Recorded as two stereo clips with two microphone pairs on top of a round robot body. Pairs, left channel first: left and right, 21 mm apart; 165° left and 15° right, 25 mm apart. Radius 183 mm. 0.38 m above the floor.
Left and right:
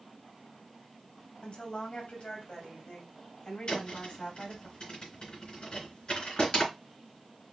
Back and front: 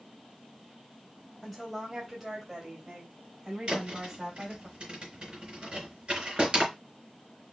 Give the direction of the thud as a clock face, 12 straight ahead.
11 o'clock.